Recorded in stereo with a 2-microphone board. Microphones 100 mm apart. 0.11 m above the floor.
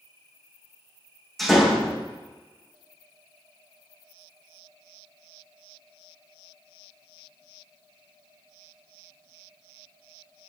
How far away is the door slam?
About 4 m.